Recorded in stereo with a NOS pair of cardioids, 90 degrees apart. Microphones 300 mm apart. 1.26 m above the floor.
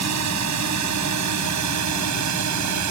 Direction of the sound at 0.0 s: 65° right.